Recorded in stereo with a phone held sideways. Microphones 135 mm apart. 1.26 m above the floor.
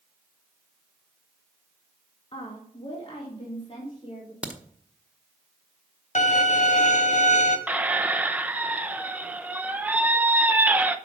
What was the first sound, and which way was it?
A woman speaking, 40° left (ahead or behind).